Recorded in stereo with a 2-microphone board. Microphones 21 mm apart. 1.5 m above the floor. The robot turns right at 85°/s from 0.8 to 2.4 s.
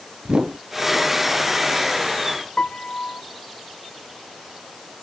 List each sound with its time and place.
0.2 s a whoosh: 50° right (ahead or behind)
2.6 s a piano: 50° left (ahead or behind)